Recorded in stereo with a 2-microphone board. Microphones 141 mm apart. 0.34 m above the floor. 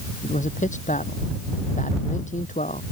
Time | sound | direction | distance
0.2 | a man speaking | 60° left (ahead or behind) | ?